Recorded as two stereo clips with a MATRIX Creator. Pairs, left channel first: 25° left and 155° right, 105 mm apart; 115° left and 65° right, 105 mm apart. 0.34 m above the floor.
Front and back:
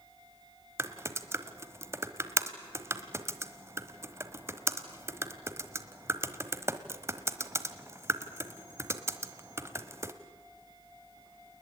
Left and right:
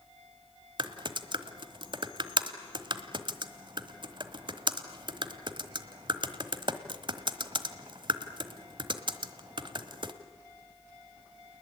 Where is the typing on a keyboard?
95° right, 1.2 m.